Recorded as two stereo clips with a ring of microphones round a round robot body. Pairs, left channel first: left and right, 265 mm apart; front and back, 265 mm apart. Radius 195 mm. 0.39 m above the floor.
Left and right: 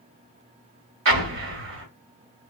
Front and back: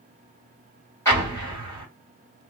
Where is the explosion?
80° right, 1.2 m.